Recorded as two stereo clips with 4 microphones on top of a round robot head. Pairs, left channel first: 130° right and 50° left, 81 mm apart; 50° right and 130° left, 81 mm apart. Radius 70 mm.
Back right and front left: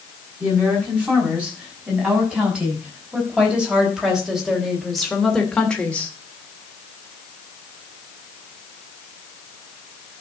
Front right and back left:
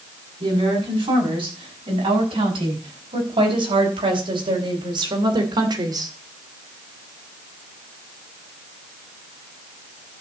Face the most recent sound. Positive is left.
turn(degrees=160)